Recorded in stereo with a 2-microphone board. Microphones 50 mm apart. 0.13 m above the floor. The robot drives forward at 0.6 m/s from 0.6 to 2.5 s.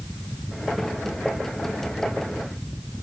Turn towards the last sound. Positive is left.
No sound to turn to.